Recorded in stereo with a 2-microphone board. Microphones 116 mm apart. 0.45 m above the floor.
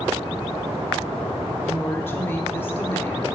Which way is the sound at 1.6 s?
20° left (ahead or behind).